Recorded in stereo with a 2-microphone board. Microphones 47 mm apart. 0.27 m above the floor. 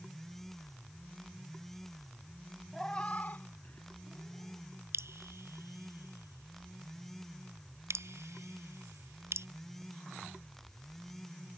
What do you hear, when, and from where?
2.7 s a cat meowing: 5° left (ahead or behind); by 4.7 s 60° left (ahead or behind)
4.9 s dripping: 75° right (ahead or behind)